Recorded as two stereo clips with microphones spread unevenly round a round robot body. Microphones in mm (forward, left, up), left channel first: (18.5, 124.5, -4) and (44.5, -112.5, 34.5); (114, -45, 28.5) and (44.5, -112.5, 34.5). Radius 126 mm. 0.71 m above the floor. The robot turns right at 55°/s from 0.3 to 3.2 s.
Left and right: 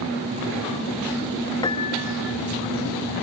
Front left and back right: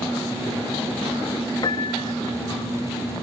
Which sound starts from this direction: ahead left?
A piano, at 1.6 s.